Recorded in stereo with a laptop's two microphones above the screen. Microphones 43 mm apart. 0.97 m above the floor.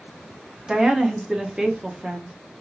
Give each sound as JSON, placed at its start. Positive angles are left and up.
{"t": 0.7, "sound": "a woman speaking", "side_deg": -15, "distance_m": 0.6}